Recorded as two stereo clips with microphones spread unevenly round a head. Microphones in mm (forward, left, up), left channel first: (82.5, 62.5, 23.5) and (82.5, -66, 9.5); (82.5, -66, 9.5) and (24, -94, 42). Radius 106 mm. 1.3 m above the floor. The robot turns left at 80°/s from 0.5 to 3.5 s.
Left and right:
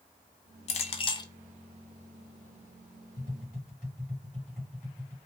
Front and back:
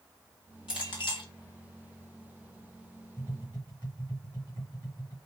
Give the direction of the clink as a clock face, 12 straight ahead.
9 o'clock.